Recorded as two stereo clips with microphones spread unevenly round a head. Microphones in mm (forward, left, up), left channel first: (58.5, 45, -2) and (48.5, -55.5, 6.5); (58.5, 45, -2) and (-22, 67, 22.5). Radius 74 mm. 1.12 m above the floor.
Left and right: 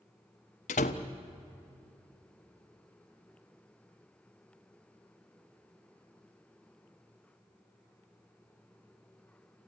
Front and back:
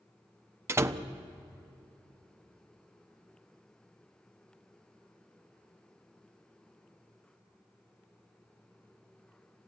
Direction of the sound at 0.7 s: 110° left.